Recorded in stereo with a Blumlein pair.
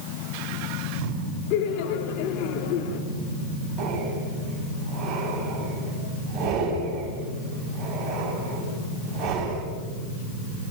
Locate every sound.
1.5 s laughter: 40° left, 3 m
3.8 s breathing: 25° right, 8.5 m